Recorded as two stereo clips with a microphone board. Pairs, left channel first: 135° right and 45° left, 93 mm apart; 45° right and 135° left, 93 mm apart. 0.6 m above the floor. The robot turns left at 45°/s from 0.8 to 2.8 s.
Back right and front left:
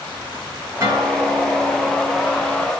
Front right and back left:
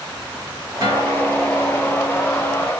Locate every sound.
0.8 s a guitar: 100° left, 2.5 m; by 2.6 s 20° left, 2.5 m